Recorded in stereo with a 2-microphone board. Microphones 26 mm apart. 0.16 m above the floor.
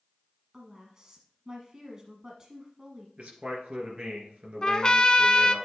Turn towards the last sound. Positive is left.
turn(degrees=35)  # may be behind; listen again after turning